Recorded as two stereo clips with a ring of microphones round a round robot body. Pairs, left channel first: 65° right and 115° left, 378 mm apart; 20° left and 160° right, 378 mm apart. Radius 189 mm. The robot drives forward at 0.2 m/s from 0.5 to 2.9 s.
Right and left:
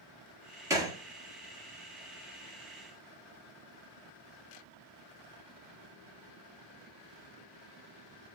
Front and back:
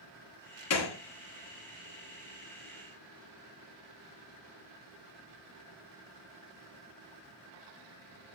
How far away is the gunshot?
About 0.8 m.